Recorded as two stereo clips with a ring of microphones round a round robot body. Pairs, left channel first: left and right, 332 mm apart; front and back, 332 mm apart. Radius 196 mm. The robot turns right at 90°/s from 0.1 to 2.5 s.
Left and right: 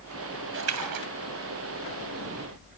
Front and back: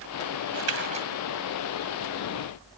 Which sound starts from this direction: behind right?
A splash, at 0.5 s.